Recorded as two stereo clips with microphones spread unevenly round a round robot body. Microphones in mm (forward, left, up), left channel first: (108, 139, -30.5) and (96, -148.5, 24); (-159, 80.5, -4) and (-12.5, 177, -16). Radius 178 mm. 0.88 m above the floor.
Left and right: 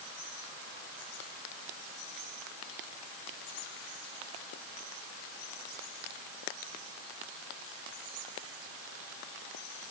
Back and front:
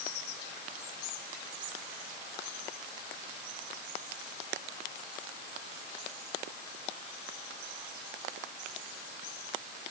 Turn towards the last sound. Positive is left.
No sound to turn to.